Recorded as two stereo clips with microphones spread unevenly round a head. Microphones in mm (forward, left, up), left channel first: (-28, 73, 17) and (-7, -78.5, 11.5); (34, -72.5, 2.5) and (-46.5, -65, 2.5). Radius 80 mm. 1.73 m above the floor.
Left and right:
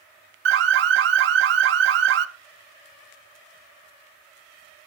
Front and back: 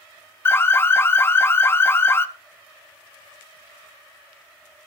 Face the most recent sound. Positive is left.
turn(degrees=-70)